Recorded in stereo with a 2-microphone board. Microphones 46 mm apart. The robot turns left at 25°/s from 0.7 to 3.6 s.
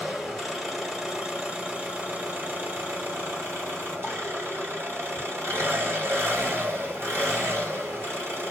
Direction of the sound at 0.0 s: 5° right.